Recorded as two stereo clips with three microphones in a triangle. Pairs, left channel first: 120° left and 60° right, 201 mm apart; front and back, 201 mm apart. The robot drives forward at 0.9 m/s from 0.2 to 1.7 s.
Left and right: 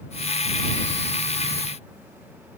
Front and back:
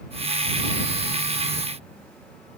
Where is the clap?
No clap in this recording.